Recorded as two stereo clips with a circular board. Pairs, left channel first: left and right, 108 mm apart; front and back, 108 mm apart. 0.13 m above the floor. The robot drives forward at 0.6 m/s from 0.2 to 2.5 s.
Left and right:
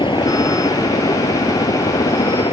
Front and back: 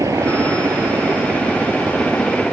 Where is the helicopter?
125° left; by 2.5 s 90° left.